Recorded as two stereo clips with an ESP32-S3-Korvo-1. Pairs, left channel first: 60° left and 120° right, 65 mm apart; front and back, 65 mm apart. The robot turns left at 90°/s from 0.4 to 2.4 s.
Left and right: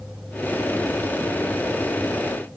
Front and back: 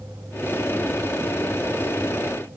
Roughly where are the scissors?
I don't hear scissors.